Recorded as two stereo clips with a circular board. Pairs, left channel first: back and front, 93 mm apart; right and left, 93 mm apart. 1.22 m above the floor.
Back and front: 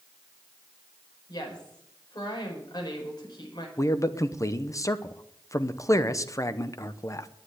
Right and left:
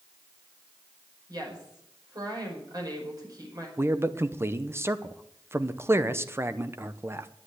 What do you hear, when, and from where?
1.3 s a woman speaking: 135° left, 5 m
3.8 s a man speaking: 140° left, 0.8 m